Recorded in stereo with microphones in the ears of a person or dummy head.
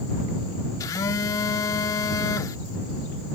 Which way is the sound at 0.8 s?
25° left (ahead or behind).